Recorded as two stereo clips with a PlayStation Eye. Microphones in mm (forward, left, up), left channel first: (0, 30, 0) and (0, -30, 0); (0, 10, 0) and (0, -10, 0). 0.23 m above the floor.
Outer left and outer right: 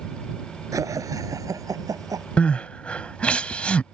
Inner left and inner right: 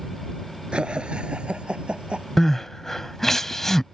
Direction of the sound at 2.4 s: 20° left (ahead or behind).